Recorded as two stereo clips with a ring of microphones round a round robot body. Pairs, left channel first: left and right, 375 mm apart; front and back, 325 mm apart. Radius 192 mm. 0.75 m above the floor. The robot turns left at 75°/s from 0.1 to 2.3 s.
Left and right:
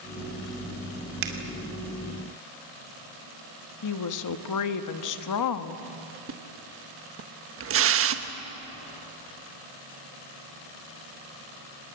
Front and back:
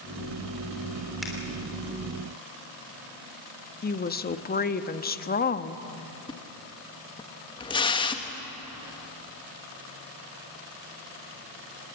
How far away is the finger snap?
About 3 m.